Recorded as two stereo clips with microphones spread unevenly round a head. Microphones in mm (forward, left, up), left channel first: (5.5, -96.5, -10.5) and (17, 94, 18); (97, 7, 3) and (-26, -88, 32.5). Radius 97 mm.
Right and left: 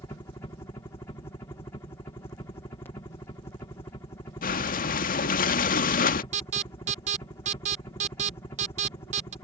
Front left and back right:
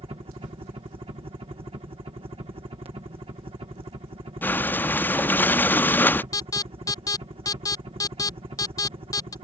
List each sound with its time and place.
0.0 s a helicopter: 135° right
4.4 s breathing: 45° right
6.3 s an alarm: 55° left